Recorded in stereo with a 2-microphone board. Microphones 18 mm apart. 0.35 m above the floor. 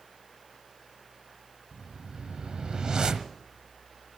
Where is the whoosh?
60° right (ahead or behind), 1.2 m.